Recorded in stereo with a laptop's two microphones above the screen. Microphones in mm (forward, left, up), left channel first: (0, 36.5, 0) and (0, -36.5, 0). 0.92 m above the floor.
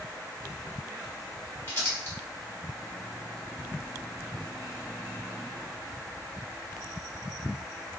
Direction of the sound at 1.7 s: 30° left (ahead or behind).